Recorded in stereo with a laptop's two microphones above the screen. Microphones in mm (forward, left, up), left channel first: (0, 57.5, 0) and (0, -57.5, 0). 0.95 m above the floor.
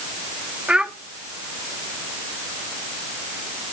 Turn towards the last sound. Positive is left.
turn(degrees=-10)  # may be behind; listen again after turning